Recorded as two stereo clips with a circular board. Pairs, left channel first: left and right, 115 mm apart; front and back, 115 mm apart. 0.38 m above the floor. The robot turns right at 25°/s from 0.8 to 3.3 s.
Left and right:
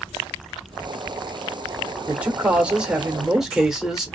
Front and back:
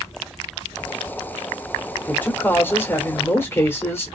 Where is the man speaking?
45° right, 0.8 m; by 4.2 s 15° right, 0.8 m.